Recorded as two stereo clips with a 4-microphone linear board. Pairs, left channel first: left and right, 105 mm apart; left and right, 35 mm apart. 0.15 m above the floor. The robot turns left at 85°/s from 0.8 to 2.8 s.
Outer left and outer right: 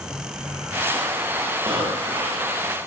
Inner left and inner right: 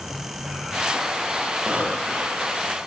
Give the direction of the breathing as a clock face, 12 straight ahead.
2 o'clock.